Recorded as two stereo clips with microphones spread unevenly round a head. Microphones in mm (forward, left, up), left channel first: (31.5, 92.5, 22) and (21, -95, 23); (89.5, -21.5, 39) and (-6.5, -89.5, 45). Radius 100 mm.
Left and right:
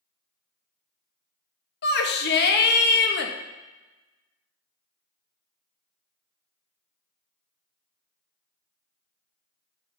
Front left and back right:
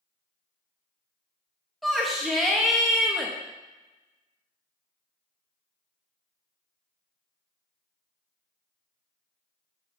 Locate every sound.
1.8 s a shout: 125° left, 1.1 m